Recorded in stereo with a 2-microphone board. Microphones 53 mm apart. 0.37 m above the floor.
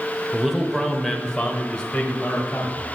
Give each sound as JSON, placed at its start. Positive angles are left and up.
{"t": 0.3, "sound": "a man speaking", "side_deg": -10, "distance_m": 0.9}